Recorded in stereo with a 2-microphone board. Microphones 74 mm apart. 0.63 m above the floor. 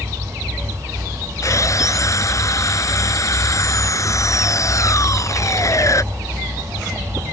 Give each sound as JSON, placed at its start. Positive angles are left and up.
{"t": 1.4, "sound": "sawing", "side_deg": 45}